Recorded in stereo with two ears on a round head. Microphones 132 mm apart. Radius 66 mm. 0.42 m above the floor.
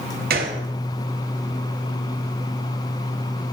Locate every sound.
0.3 s a gunshot: 70° right (ahead or behind), 0.9 m